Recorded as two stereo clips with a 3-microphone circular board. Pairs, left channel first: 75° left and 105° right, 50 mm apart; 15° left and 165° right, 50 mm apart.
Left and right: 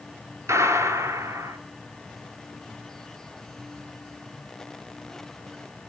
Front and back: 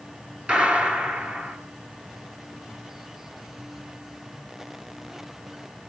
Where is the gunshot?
100° right, 3 m.